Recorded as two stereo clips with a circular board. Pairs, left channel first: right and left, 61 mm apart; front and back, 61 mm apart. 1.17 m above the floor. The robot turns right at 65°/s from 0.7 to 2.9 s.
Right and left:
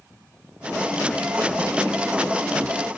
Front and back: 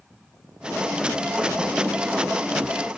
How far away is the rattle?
I don't hear a rattle.